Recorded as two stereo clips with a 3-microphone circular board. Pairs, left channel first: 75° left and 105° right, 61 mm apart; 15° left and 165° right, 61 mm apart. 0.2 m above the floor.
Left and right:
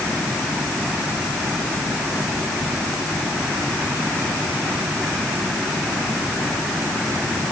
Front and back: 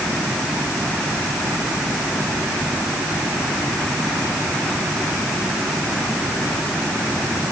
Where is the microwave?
I don't hear a microwave.